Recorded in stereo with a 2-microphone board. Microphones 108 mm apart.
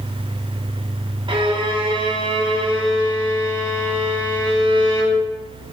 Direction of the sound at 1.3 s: 50° right (ahead or behind).